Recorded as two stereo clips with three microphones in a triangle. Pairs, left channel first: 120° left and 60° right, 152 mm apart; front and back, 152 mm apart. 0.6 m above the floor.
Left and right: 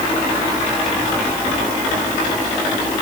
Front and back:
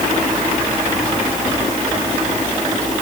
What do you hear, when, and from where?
Only background noise.